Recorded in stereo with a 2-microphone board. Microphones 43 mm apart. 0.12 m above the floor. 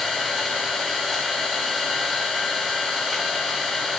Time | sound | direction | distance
0.0 | an engine running | 10° right (ahead or behind) | 8 m